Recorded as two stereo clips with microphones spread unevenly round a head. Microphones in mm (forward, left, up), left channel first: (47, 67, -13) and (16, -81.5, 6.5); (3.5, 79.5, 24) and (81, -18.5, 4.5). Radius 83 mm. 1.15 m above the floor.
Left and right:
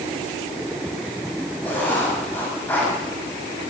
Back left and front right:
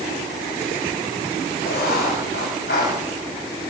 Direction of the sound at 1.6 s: 160° left.